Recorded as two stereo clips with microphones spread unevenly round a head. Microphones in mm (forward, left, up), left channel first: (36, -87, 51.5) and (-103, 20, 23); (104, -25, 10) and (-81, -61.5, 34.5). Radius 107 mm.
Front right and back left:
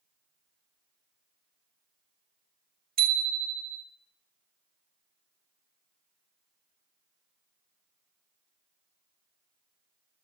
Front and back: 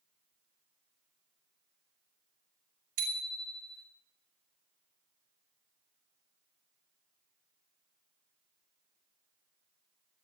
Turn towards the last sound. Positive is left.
turn(degrees=180)